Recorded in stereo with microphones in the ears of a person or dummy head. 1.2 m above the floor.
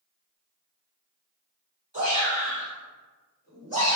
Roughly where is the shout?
Right.